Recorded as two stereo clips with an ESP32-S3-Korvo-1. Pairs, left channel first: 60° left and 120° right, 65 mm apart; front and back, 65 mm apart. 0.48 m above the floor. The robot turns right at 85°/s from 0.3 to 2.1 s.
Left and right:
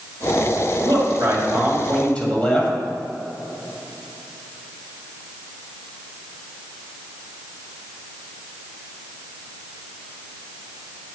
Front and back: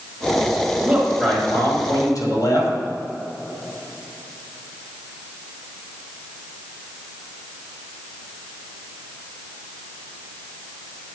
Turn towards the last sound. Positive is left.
turn(degrees=-10)